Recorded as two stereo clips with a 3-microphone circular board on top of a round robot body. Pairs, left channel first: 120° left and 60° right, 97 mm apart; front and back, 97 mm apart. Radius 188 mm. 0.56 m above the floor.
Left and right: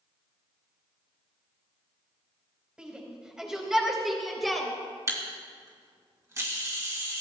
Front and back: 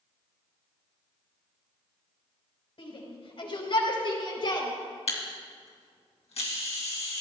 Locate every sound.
2.8 s a shout: 20° left, 4 m; by 4.7 s 30° left, 3 m
5.1 s a camera shutter: straight ahead, 2.5 m